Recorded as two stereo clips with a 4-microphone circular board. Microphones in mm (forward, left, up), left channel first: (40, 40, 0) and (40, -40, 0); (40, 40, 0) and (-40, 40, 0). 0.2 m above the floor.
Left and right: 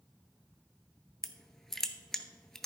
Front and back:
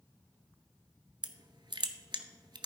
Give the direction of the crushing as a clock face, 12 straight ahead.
6 o'clock.